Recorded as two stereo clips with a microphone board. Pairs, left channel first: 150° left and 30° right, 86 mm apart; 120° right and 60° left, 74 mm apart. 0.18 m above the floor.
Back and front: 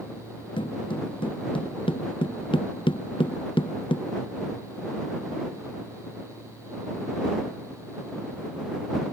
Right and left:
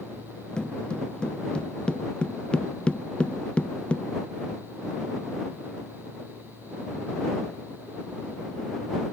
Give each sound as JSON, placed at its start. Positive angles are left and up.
{"t": 0.6, "sound": "footsteps", "azimuth_deg": 160}